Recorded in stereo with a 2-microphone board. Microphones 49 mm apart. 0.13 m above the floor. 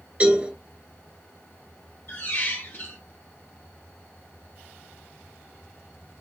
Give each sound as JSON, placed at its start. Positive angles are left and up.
{"t": 0.2, "sound": "a cowbell", "side_deg": -30, "distance_m": 1.9}
{"t": 2.1, "sound": "a squeak", "side_deg": 50, "distance_m": 1.4}